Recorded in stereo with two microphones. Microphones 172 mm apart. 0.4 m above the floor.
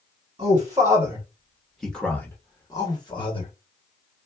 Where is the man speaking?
25° right (ahead or behind), 1.3 m; by 3.5 s 30° left (ahead or behind), 1.4 m.